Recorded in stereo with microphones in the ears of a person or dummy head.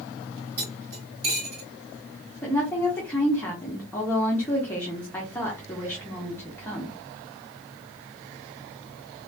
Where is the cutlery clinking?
55° right (ahead or behind), 2.5 m.